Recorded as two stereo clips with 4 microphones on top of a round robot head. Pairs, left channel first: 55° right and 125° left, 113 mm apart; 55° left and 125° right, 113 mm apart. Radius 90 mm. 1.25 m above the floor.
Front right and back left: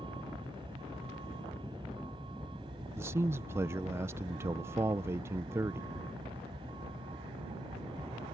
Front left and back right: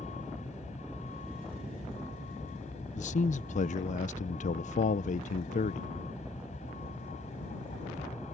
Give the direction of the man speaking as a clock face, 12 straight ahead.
10 o'clock.